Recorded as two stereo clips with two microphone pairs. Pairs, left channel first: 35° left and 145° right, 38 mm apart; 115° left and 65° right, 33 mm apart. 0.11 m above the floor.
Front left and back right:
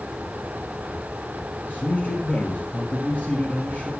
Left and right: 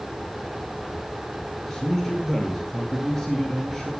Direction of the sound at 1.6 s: 35° left.